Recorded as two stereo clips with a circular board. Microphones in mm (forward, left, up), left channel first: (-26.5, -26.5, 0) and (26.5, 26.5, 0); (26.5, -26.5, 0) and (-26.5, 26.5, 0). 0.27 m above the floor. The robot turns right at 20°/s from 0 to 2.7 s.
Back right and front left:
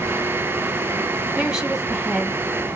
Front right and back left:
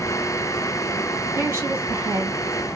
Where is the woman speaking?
115° left, 1.9 m; by 2.4 s 140° left, 1.9 m.